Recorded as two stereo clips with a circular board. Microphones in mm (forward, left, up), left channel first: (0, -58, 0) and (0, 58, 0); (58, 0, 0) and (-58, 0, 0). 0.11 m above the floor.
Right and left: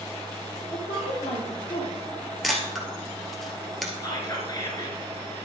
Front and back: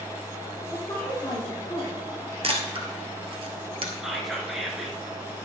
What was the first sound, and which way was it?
A woman speaking, 70° right.